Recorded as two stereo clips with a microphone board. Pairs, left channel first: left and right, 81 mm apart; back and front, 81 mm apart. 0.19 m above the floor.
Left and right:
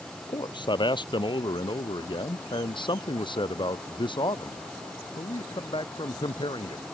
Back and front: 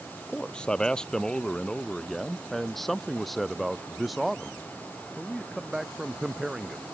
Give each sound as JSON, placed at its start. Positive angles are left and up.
{"t": 0.3, "sound": "a man speaking", "azimuth_deg": 105}